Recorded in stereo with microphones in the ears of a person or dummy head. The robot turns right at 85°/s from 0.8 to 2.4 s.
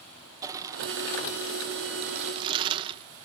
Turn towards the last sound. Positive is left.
turn(degrees=-30)